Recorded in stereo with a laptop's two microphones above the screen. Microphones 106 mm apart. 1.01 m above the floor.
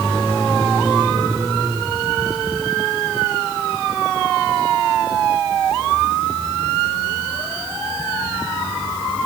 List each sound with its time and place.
Only background noise.